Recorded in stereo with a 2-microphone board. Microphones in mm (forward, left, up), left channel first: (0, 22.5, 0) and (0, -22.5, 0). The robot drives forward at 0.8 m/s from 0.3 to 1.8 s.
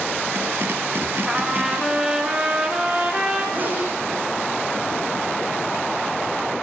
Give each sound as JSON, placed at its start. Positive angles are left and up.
{"t": 1.3, "sound": "a trumpet", "side_deg": -15, "distance_m": 2.5}
{"t": 3.5, "sound": "a sneeze", "side_deg": -40, "distance_m": 6.0}